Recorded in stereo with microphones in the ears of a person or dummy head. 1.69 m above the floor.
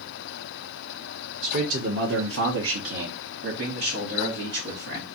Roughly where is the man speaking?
Right.